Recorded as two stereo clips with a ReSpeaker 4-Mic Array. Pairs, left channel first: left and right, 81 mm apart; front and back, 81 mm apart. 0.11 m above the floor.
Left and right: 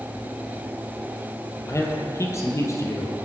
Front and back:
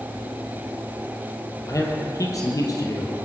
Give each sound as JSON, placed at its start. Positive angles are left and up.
{"t": 1.7, "sound": "a man speaking", "azimuth_deg": 40, "distance_m": 2.5}